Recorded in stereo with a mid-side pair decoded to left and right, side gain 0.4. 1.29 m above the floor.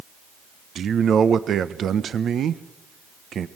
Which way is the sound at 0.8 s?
60° right.